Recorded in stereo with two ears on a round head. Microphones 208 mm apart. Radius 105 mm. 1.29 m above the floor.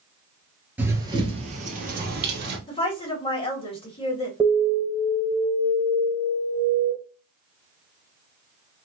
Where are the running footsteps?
10° right (ahead or behind), 1.3 m; by 2.6 s 50° right (ahead or behind), 2.5 m.